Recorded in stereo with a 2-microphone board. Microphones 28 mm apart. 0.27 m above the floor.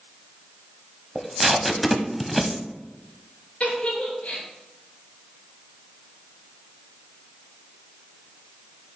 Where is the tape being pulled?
5° right (ahead or behind), 0.7 m.